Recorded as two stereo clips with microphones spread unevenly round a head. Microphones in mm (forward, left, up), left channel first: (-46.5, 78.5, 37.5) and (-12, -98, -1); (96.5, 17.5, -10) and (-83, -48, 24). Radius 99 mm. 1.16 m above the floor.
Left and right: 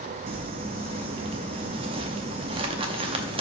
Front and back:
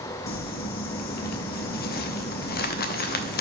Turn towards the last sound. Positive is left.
turn(degrees=-10)